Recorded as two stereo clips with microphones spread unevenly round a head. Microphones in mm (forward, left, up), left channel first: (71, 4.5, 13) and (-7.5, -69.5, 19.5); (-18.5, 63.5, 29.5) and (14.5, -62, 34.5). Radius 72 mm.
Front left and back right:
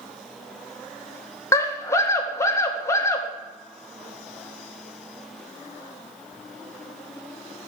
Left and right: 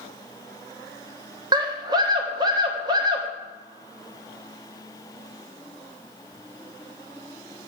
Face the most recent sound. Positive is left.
turn(degrees=-15)